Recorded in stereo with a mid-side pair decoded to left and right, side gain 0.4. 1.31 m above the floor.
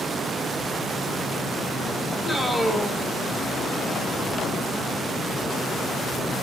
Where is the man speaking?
10° right, 4.5 m.